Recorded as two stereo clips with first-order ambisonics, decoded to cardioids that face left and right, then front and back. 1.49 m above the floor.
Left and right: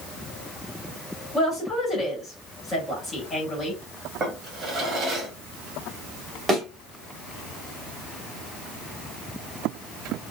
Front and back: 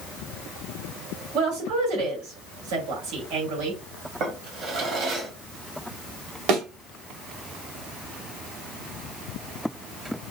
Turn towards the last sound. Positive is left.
turn(degrees=-165)